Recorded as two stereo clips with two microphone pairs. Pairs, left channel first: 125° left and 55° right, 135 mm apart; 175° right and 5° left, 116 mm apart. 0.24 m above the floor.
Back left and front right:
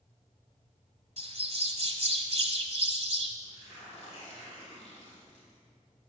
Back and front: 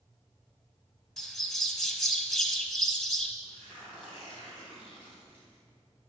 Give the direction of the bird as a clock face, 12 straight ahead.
3 o'clock.